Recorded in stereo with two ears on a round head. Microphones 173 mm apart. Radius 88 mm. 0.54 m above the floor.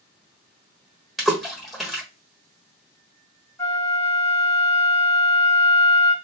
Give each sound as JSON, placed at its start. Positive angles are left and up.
{"t": 1.2, "sound": "a splash", "side_deg": 0, "distance_m": 1.2}
{"t": 3.6, "sound": "a flute", "side_deg": 15, "distance_m": 1.1}